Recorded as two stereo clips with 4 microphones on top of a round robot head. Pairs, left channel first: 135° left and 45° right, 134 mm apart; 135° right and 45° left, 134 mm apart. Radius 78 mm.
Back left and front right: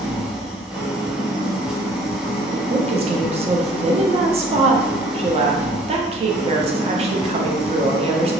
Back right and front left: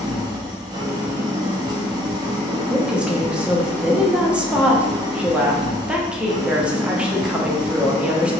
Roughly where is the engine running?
Ahead left.